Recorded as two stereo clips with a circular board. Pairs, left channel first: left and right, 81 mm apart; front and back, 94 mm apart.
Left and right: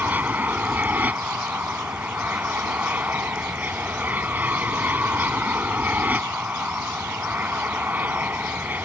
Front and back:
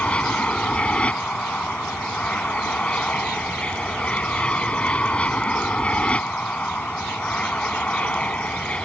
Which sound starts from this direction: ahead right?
An aircraft, at 0.0 s.